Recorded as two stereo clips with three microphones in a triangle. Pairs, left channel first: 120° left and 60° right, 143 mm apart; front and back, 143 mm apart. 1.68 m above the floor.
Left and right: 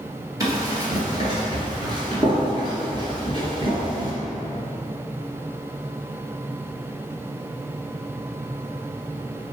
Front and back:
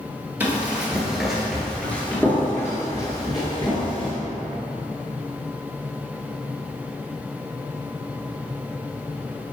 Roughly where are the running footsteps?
Right.